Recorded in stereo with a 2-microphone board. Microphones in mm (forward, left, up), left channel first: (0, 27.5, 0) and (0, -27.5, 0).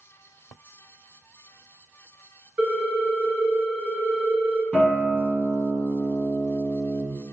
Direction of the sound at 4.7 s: 10° left (ahead or behind).